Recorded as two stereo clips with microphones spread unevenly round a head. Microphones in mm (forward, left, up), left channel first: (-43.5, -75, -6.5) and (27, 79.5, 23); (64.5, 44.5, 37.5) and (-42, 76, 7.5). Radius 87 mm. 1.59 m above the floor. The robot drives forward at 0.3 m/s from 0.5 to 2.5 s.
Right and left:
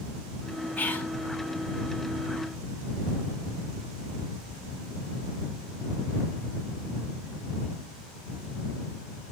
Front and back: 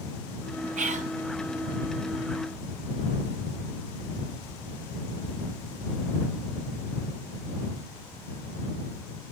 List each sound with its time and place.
0.8 s whispering: 165° left, 1.6 m